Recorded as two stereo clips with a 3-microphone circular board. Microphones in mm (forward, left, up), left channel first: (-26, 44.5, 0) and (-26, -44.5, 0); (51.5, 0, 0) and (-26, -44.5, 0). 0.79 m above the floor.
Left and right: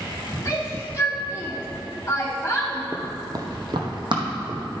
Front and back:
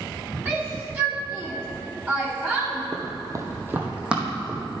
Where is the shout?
150° left, 2.5 m.